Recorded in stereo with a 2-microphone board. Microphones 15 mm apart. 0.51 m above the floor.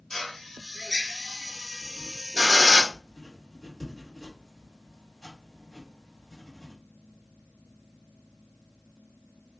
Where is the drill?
35° left (ahead or behind), 1.0 m.